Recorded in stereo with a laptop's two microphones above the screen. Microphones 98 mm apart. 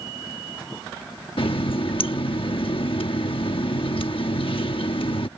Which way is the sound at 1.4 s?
60° left (ahead or behind).